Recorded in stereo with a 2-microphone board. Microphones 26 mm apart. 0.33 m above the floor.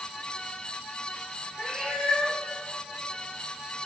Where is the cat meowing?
30° left (ahead or behind), 3 m.